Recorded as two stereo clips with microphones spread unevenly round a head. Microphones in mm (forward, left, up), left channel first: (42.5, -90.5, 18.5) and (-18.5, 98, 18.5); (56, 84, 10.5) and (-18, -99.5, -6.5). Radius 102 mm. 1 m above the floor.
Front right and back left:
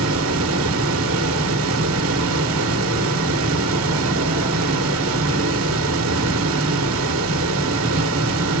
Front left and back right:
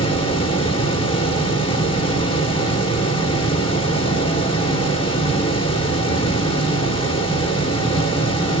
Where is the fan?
135° left, 1.6 m.